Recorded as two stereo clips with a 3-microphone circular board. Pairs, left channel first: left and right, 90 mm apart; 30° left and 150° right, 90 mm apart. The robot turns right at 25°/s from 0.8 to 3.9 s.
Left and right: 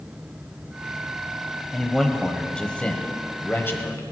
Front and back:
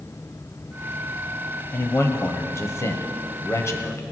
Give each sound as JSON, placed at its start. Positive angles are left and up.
{"t": 1.7, "sound": "a man speaking", "azimuth_deg": -5, "distance_m": 1.2}